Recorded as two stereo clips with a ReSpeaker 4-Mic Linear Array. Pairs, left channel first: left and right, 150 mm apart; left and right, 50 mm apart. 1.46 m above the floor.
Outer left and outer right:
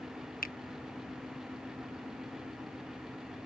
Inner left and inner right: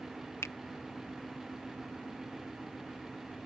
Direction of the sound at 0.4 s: 80° left.